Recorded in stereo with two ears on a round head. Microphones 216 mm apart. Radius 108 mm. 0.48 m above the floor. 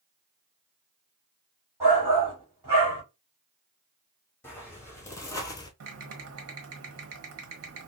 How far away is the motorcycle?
I don't hear a motorcycle.